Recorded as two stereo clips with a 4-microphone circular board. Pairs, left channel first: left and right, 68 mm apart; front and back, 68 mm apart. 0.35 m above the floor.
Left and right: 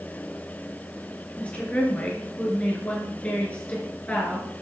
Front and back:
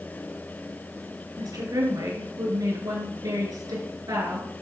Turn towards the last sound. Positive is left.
turn(degrees=160)